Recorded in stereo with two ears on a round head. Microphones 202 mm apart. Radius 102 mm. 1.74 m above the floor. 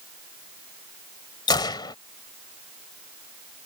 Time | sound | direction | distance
1.5 | a gunshot | 20° left (ahead or behind) | ?